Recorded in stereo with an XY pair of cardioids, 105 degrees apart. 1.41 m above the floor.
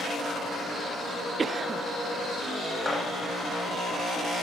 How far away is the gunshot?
About 4 m.